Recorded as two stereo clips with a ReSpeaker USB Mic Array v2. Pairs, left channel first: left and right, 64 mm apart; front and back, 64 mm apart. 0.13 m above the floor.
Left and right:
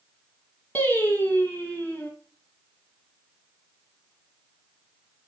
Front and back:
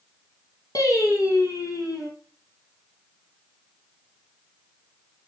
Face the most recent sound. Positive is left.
turn(degrees=25)